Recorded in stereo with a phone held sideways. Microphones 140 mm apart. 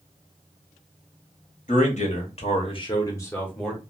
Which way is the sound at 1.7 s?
60° left (ahead or behind).